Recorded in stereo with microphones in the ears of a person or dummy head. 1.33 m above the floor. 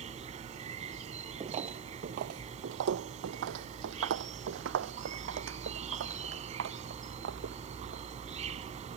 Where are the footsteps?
25° right (ahead or behind); by 8.0 s 70° right (ahead or behind).